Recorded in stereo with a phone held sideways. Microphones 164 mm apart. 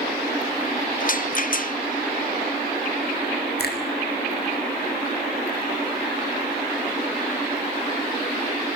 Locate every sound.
1.0 s a rattle: 55° left (ahead or behind), 0.7 m
3.6 s a finger snap: 75° left (ahead or behind), 5 m